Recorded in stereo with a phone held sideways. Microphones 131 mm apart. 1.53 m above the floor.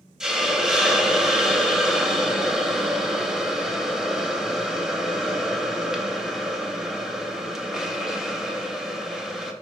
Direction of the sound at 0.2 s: 5° right (ahead or behind).